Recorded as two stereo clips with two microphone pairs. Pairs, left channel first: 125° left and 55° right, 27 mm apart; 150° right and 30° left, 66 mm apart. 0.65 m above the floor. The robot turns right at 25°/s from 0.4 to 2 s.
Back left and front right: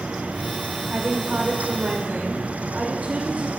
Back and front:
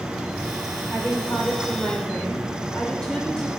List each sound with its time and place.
0.9 s a woman speaking: 100° right, 2.5 m; by 3.5 s 75° right, 2.5 m